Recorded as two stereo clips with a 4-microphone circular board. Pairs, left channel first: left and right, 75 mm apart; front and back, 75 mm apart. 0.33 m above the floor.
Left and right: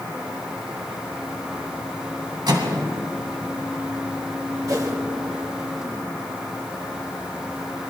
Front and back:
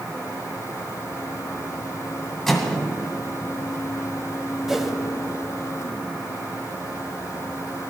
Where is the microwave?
85° right, 2.5 m.